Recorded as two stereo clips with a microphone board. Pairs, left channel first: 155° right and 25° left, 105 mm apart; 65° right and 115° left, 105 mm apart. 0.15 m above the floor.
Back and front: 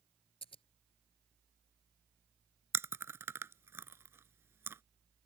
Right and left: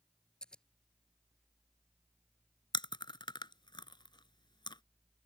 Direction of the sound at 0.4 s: 150° right.